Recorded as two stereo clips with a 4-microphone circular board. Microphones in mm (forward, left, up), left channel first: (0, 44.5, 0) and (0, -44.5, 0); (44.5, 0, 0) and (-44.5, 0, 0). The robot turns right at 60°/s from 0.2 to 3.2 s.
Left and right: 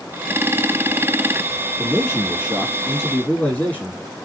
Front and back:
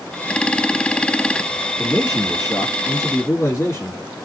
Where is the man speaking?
55° right, 1.9 m; by 4.0 s 30° left, 1.9 m.